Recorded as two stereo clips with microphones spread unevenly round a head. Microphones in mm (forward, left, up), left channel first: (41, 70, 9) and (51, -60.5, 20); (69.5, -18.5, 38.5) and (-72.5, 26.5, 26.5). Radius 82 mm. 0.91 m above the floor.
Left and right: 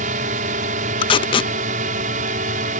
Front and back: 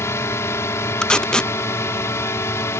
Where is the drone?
90° right.